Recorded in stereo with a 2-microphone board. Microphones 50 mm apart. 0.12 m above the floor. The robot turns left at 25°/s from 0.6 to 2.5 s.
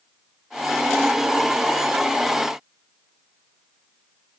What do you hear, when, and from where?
Only background noise.